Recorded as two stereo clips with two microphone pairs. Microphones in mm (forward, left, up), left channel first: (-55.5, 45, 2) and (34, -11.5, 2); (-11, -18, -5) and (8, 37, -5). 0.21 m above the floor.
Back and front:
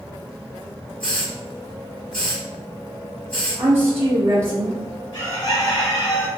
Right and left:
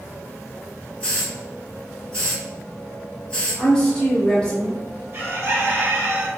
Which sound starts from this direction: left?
A bird, at 5.1 s.